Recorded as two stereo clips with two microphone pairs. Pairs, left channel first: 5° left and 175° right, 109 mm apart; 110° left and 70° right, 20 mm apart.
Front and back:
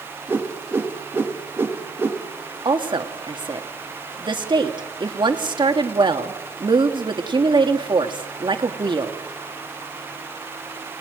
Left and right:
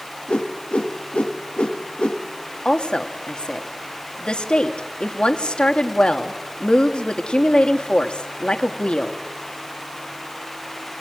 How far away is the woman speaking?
About 1.9 m.